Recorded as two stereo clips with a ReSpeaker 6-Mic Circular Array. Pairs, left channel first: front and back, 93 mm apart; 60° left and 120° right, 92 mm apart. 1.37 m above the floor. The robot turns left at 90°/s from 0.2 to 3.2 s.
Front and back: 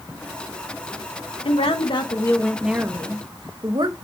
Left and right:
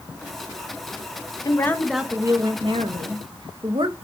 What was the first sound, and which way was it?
A woman speaking, 10° left.